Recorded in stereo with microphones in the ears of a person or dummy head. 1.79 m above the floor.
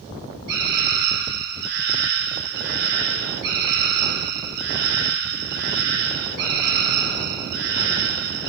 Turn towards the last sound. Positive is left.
turn(degrees=-60)  # may be behind; listen again after turning